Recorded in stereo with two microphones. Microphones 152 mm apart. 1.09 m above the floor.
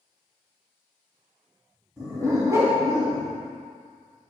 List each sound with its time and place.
2.0 s a dog barking: 20° right (ahead or behind), 3 m